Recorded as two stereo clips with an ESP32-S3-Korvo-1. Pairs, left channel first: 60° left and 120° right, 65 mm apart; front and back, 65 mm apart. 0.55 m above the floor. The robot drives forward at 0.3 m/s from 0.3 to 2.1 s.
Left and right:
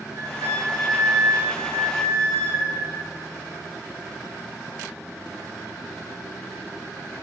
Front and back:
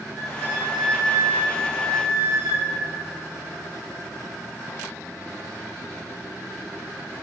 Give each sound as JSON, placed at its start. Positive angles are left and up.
{"t": 0.1, "sound": "a flute", "azimuth_deg": -90, "distance_m": 0.7}